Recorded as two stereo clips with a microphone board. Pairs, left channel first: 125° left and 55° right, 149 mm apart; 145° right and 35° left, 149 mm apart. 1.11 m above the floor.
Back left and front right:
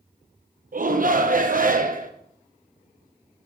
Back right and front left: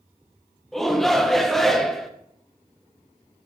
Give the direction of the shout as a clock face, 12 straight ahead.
2 o'clock.